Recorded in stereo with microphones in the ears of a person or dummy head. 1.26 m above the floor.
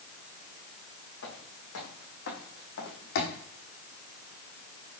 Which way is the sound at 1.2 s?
75° left (ahead or behind).